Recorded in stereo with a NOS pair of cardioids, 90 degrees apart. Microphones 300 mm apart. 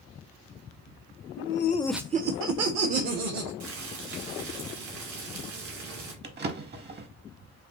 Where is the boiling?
65° right, 2.5 m.